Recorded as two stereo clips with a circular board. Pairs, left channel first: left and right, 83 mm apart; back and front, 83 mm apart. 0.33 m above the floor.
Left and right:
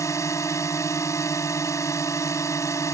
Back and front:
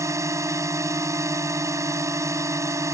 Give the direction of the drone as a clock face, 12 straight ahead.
10 o'clock.